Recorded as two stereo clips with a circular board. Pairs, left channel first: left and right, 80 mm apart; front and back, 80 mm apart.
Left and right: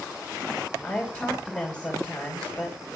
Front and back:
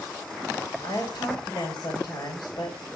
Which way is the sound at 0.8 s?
15° left.